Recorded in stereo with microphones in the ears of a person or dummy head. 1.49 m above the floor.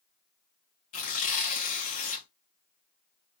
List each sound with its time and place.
0.9 s tearing paper: 45° left (ahead or behind), 1.0 m